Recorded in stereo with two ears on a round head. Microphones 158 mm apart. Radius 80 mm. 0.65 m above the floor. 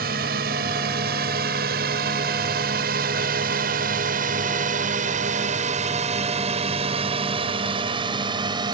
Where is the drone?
60° right (ahead or behind); by 8.8 s 25° right (ahead or behind).